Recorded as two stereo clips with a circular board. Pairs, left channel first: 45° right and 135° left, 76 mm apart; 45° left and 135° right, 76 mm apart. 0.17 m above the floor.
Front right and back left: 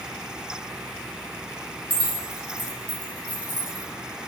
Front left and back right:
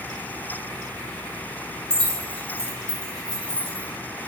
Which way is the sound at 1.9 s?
105° left.